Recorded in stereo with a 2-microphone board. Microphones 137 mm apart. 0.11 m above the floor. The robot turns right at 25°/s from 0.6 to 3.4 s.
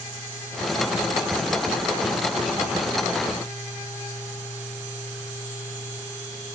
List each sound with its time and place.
Only background noise.